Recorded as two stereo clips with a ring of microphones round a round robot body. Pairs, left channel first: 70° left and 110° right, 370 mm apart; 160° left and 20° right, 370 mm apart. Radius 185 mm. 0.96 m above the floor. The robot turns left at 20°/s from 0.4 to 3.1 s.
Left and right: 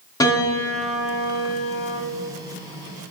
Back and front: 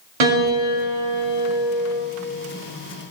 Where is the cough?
I don't hear a cough.